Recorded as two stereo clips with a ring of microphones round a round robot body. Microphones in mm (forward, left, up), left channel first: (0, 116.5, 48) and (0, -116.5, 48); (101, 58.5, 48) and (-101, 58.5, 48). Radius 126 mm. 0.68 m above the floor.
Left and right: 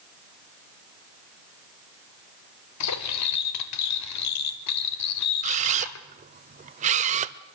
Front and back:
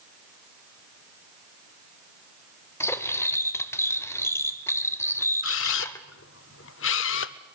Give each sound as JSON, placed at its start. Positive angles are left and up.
{"t": 2.8, "sound": "cutlery clinking", "azimuth_deg": 80, "distance_m": 1.7}
{"t": 5.4, "sound": "a camera shutter", "azimuth_deg": -30, "distance_m": 0.5}